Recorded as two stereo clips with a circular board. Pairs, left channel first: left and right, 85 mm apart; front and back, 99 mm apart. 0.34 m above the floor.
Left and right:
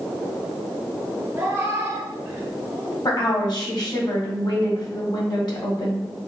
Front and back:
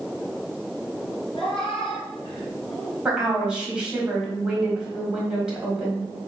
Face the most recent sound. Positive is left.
turn(degrees=100)